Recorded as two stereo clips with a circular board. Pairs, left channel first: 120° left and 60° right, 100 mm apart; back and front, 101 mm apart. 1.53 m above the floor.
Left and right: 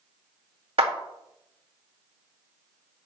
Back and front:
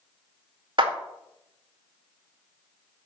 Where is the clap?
35° right, 2.0 m.